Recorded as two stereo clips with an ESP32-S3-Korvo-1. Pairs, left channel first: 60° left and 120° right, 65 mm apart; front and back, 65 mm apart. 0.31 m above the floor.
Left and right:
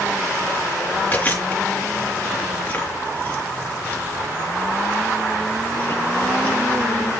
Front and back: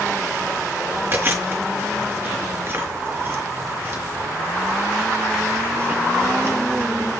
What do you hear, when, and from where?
1.1 s chewing: 125° left, 4.5 m